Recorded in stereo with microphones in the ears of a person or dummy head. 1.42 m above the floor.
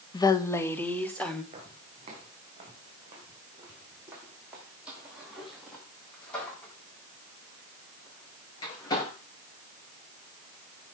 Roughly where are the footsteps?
Right.